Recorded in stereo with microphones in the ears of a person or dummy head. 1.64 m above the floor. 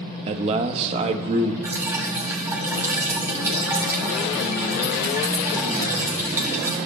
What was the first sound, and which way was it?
A man speaking, 35° right (ahead or behind).